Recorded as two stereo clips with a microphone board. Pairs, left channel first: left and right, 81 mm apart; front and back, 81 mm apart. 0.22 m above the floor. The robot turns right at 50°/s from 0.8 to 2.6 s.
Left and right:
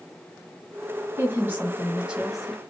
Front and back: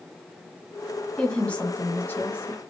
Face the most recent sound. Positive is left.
turn(degrees=0)